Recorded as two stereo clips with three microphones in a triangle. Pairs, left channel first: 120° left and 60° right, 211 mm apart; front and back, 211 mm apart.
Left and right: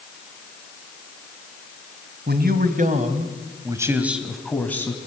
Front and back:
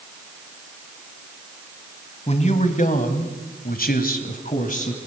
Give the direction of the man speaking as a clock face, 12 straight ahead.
2 o'clock.